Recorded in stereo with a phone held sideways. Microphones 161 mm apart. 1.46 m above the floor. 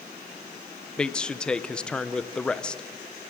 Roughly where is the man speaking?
Centre.